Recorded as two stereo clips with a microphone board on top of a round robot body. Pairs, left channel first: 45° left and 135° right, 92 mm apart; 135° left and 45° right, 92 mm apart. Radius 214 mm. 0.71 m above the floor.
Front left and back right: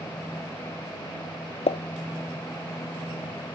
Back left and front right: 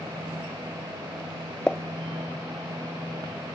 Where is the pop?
55° left.